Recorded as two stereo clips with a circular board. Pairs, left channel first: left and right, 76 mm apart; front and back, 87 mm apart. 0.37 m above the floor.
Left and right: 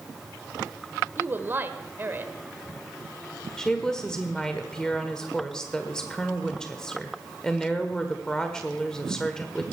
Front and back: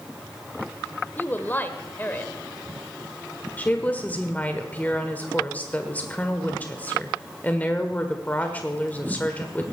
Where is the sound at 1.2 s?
50° right, 1.1 m.